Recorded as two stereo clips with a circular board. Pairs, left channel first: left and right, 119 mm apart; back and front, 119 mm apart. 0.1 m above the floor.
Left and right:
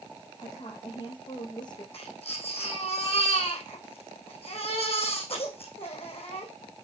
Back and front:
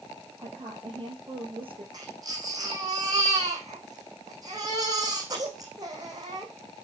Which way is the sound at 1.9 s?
55° left.